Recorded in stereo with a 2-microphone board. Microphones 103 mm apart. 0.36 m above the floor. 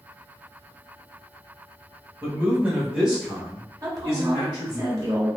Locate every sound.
2.2 s a man speaking: 25° right (ahead or behind), 1.1 m; by 4.8 s 25° left (ahead or behind), 1.5 m
3.8 s a woman speaking: 35° right (ahead or behind), 1.0 m